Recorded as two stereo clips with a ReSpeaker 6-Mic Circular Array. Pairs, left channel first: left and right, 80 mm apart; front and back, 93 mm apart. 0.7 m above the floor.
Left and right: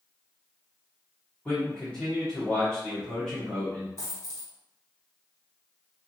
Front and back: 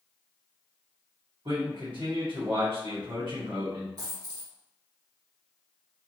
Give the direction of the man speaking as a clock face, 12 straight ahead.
7 o'clock.